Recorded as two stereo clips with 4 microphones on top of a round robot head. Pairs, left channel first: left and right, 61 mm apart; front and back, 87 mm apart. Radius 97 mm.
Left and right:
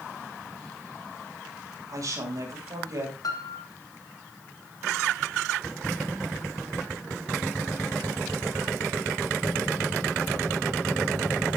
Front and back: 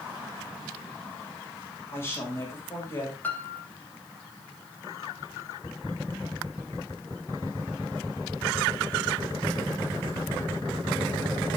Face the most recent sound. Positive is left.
turn(degrees=70)